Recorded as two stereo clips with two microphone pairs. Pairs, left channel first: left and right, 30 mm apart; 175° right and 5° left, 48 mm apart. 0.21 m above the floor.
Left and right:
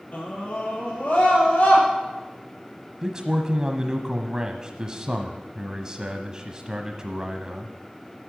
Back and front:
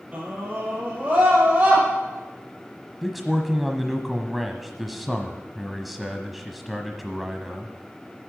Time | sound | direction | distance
0.1 | a scream | 60° left | 5 m
3.0 | a man speaking | 80° right | 1.0 m